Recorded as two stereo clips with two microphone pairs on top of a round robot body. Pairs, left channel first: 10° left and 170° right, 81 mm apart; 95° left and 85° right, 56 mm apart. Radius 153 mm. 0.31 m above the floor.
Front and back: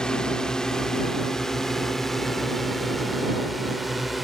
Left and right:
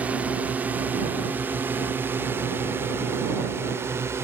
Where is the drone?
65° right; by 4.2 s 85° right.